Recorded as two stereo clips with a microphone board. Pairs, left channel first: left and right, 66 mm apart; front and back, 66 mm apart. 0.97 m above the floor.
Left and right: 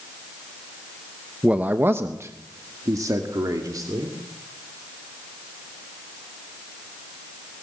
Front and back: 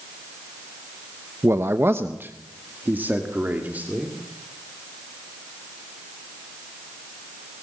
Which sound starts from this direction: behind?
A man speaking, at 1.4 s.